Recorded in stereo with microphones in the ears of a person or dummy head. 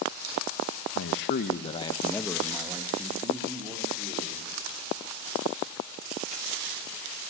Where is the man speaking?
70° left (ahead or behind), 1.5 m; by 4.5 s 30° right (ahead or behind), 4.5 m.